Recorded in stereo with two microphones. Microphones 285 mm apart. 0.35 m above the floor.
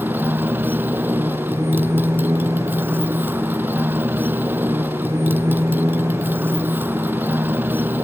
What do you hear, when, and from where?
0.0 s a motorcycle: 5° right (ahead or behind)